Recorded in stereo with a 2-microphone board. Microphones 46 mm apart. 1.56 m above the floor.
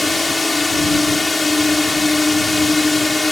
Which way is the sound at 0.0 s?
Centre (ahead or behind).